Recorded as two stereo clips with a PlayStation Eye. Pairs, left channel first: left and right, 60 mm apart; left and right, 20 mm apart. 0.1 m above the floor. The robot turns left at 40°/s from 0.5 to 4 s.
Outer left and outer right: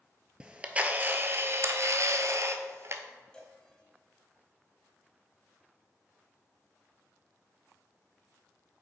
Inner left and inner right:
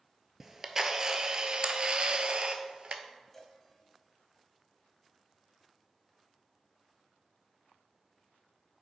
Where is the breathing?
I don't hear breathing.